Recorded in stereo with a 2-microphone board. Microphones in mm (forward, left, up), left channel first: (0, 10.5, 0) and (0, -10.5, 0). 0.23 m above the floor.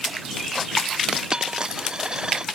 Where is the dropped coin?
30° right (ahead or behind).